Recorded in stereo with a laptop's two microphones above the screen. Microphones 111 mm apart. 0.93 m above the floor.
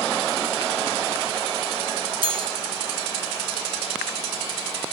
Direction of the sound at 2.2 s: 55° right (ahead or behind).